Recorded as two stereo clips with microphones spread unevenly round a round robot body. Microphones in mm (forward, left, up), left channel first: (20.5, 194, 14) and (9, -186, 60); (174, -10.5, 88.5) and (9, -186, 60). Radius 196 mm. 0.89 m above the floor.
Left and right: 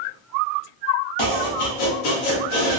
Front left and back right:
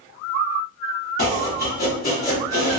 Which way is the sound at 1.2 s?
115° left.